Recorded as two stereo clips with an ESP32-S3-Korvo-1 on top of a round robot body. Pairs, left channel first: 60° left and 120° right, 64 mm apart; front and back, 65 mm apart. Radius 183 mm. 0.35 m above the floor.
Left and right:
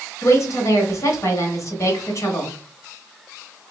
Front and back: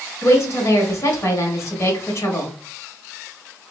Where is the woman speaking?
35° left, 1.9 m.